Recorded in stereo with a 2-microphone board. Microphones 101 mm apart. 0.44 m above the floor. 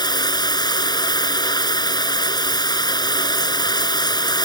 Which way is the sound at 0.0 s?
45° left (ahead or behind).